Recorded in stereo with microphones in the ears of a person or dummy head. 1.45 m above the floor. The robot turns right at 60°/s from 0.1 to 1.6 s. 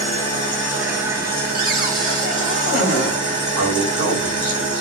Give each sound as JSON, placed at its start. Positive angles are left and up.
{"t": 0.0, "sound": "an engine running", "azimuth_deg": 150, "distance_m": 1.8}
{"t": 1.5, "sound": "a cupboard door", "side_deg": -60, "distance_m": 1.7}
{"t": 3.6, "sound": "a man speaking", "side_deg": -85, "distance_m": 1.5}